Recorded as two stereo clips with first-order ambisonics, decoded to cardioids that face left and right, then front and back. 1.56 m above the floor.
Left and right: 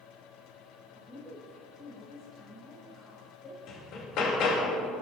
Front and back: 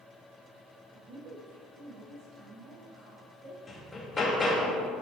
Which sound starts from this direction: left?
Hammering, at 3.7 s.